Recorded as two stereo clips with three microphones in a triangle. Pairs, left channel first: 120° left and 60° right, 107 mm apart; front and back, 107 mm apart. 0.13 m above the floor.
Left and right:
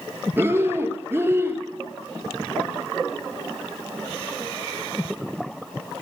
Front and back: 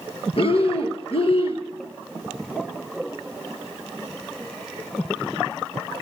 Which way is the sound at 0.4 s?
5° left.